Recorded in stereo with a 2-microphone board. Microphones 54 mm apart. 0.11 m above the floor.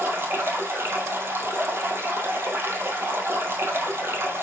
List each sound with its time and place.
0.0 s running water: 45° right (ahead or behind), 2.5 m